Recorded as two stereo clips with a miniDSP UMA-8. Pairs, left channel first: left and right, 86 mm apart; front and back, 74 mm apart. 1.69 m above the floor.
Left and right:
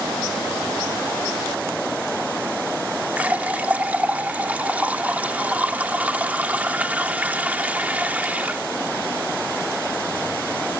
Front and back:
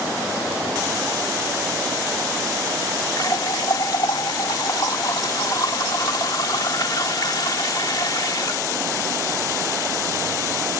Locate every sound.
3.2 s a running tap: 20° right